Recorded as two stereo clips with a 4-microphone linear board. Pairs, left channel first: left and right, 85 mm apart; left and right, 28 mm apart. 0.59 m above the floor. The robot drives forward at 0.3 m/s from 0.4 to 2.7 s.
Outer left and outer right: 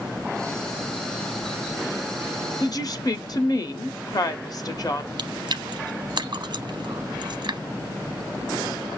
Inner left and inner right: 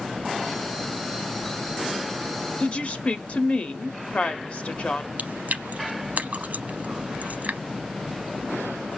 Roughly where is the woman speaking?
Left.